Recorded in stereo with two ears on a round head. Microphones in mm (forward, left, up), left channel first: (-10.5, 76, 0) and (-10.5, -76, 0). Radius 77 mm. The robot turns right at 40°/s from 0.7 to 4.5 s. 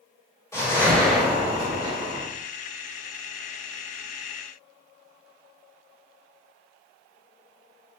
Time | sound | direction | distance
0.5 | a whoosh | 160° left | 2.5 m